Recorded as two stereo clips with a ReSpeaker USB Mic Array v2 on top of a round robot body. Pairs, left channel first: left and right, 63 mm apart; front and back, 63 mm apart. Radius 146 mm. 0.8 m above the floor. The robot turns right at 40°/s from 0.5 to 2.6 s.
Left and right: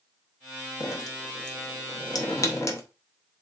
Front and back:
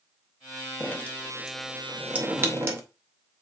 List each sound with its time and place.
0.8 s dripping: 60° left, 0.8 m; by 2.8 s 130° left, 0.8 m